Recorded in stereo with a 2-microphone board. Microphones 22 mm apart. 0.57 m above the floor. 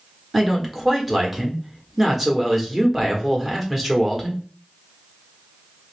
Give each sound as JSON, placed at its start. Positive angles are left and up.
{"t": 0.3, "sound": "a man speaking", "side_deg": -10, "distance_m": 1.1}